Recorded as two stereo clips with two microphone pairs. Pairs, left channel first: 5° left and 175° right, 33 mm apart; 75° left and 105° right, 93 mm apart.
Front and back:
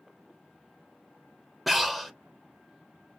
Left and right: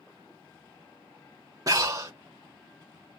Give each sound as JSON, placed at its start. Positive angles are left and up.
{"t": 1.7, "sound": "breathing", "azimuth_deg": -85, "distance_m": 0.8}